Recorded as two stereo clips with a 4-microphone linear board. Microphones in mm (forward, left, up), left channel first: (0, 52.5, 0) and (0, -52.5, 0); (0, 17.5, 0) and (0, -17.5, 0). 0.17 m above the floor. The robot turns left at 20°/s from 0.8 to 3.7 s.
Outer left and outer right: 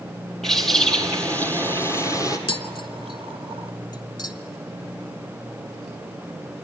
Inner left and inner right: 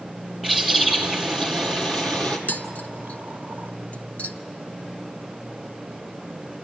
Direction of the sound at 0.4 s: 175° left.